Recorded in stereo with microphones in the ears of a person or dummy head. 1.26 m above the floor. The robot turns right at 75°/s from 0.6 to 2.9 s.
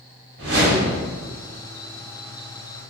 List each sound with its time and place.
0.4 s a whoosh: 120° right, 1.8 m; by 1.0 s 90° right, 1.8 m